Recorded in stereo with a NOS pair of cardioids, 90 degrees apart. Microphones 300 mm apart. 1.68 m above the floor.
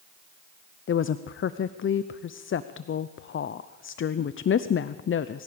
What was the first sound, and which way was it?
A woman speaking, 40° left.